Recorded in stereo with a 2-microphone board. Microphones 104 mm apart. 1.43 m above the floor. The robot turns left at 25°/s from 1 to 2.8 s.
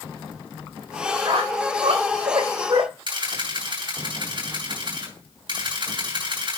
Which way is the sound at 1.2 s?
70° right (ahead or behind).